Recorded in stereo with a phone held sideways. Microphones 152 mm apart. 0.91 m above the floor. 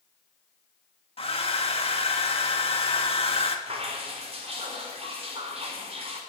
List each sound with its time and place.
1.2 s a hair dryer: 40° left (ahead or behind), 1.7 m
3.7 s dripping: 40° right (ahead or behind), 3.5 m